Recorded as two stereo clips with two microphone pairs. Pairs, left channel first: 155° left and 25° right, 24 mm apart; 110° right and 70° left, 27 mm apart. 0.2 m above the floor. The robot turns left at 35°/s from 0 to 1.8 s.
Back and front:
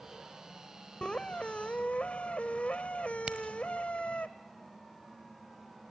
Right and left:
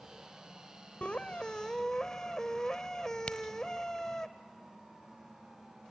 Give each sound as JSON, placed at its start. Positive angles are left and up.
{"t": 1.0, "sound": "a squeak", "azimuth_deg": -155, "distance_m": 1.0}
{"t": 3.3, "sound": "a crack", "azimuth_deg": -50, "distance_m": 1.2}